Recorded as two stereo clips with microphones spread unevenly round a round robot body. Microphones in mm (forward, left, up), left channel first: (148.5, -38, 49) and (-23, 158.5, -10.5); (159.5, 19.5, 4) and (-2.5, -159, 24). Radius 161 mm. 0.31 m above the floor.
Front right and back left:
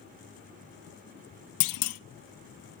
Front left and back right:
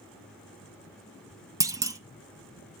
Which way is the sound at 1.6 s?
55° right.